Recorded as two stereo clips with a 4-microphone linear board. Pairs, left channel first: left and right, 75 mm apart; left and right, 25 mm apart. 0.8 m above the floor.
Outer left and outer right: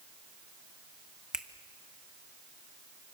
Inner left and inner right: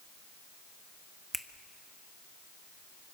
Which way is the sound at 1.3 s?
10° right (ahead or behind).